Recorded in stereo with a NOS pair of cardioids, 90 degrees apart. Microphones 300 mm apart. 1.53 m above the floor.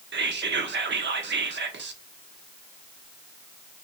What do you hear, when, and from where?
0.1 s whispering: 40° right, 1.0 m